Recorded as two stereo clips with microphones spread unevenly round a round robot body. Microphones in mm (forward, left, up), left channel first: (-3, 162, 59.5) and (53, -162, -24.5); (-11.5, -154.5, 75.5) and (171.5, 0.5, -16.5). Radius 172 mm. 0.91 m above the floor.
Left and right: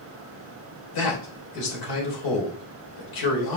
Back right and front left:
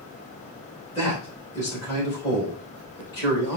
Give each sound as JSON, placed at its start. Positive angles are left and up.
{"t": 0.9, "sound": "a man speaking", "azimuth_deg": 135, "distance_m": 4.0}